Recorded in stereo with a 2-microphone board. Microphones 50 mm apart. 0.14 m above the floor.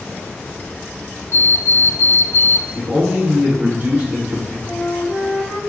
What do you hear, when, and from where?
1.3 s an alarm clock: 55° left (ahead or behind), 1.8 m
2.8 s a man speaking: 25° right (ahead or behind), 1.4 m
4.7 s a flute: 65° left (ahead or behind), 1.3 m